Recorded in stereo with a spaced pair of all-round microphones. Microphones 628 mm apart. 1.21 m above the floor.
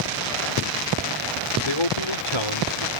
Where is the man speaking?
55° left (ahead or behind); by 2.9 s 45° left (ahead or behind).